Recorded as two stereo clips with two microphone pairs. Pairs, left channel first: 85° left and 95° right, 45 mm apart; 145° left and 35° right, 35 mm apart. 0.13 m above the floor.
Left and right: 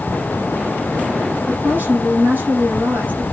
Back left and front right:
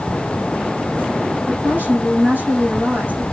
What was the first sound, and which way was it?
A woman speaking, 55° right.